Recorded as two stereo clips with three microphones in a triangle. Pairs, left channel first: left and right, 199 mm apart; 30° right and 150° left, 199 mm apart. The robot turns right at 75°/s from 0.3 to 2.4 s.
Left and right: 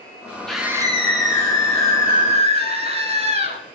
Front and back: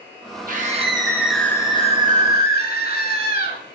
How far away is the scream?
About 2 m.